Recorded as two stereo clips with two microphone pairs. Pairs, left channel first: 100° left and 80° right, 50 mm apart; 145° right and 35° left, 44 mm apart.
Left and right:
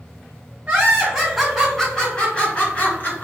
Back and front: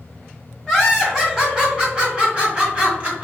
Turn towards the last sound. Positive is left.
turn(degrees=75)